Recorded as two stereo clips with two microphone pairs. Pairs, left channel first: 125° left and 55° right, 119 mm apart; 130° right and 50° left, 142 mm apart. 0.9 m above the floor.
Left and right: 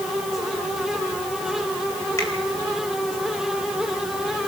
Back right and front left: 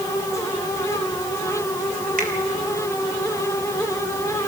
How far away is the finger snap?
About 4 m.